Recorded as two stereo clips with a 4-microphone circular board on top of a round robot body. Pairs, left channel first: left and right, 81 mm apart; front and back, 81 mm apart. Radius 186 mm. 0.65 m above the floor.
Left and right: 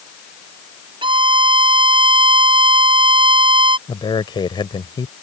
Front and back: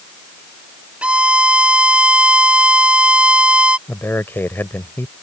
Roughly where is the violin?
Right.